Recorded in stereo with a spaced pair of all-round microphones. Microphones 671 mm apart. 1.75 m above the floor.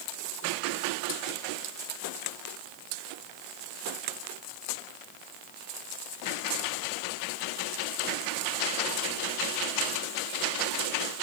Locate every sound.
Only background noise.